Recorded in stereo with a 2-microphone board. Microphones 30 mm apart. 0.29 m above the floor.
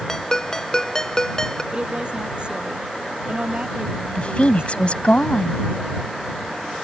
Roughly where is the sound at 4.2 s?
Left.